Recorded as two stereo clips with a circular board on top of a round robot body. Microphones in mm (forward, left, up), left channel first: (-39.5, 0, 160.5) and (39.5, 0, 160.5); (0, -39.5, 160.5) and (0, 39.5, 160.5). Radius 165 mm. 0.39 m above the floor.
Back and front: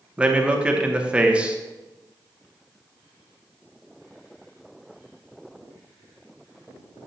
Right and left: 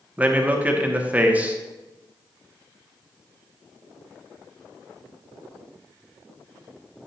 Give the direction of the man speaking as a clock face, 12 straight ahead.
10 o'clock.